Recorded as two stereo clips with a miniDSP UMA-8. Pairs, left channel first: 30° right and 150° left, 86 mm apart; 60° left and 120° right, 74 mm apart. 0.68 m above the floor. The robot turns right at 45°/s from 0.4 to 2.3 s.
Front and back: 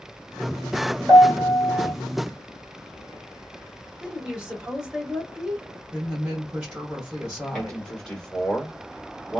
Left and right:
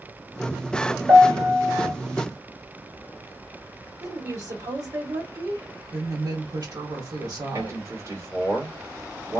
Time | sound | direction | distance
1.1 | a piano | 170° left | 2 m
4.0 | a woman speaking | 130° right | 1.7 m
5.9 | a woman speaking | 135° right | 1.7 m
7.5 | a man speaking | 105° right | 1.8 m